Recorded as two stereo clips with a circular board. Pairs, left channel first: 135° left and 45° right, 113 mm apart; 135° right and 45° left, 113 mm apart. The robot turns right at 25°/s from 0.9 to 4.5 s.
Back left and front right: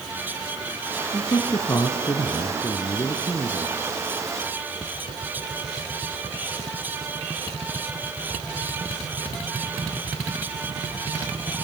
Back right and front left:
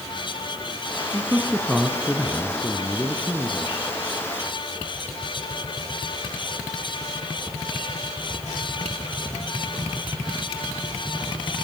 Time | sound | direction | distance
1.1 | a man speaking | 120° left | 1.5 m